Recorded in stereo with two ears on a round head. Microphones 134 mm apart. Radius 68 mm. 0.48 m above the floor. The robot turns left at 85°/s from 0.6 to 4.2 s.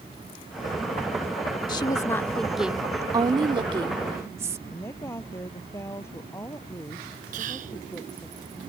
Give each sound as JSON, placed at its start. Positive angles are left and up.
{"t": 1.7, "sound": "a woman speaking", "azimuth_deg": 70}
{"t": 4.7, "sound": "a woman speaking", "side_deg": 20}
{"t": 7.3, "sound": "whispering", "side_deg": -55}